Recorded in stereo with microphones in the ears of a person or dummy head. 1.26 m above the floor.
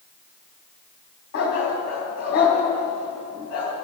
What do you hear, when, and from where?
1.3 s a dog barking: 50° left (ahead or behind), 3.5 m